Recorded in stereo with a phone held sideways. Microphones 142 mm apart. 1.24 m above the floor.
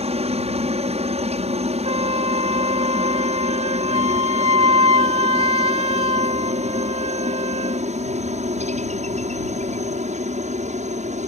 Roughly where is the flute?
Right.